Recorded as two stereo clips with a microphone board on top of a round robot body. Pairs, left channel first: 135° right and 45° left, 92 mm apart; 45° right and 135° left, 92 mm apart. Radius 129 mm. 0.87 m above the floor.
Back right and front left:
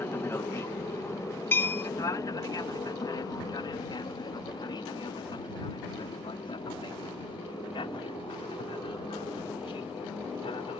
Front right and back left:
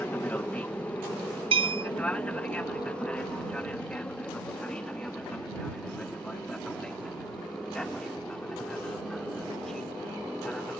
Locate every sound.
0.0 s an aircraft: 100° right; by 10.8 s 130° right
1.5 s a bell: 155° left